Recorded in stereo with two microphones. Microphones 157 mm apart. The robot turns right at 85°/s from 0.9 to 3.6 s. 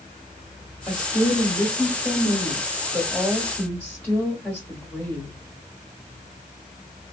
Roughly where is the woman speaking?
Behind left.